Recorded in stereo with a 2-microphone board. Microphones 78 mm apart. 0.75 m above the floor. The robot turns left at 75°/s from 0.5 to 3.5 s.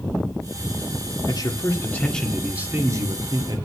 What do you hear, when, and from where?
1.3 s a man speaking: 80° left, 1.7 m; by 3.6 s 90° right, 1.7 m